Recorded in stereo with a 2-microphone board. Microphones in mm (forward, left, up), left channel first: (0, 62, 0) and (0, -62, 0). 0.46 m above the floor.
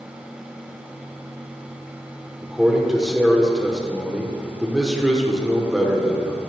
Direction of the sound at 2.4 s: Centre (ahead or behind).